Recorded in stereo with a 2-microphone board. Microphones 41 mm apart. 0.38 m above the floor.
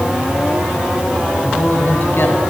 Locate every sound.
1.4 s a man speaking: 55° left (ahead or behind), 3 m